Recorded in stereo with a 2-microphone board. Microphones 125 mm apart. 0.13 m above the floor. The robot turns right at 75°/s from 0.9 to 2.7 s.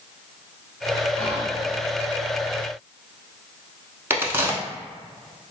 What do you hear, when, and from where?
1.2 s whispering: 10° left (ahead or behind), 1.3 m; by 1.6 s 5° right (ahead or behind), 1.3 m
4.1 s a crack: 20° right (ahead or behind), 0.7 m